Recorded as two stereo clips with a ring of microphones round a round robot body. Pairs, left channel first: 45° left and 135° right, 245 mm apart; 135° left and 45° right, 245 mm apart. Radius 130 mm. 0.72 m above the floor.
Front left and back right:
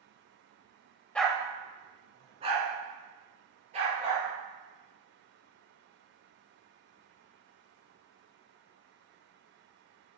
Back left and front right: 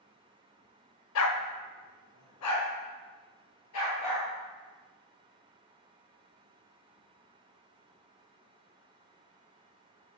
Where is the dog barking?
130° left, 0.6 m; by 4.3 s 160° left, 4 m.